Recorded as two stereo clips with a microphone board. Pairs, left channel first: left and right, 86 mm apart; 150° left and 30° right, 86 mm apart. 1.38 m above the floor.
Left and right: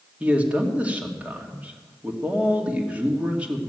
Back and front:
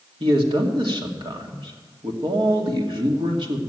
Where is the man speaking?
15° right, 2 m.